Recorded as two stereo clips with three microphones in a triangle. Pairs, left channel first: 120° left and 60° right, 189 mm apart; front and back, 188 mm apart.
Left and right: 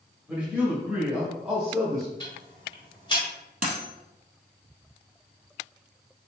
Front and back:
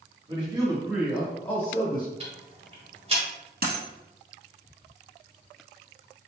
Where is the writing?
I don't hear writing.